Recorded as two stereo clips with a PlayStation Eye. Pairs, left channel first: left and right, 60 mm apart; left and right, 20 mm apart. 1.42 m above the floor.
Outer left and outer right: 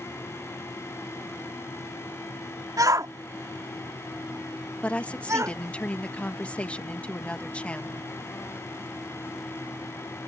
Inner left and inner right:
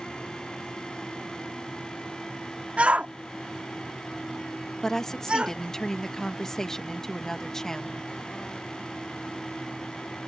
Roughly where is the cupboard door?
I don't hear a cupboard door.